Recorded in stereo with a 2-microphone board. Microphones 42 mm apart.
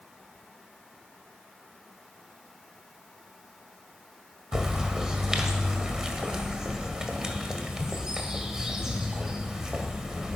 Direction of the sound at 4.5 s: 15° right (ahead or behind).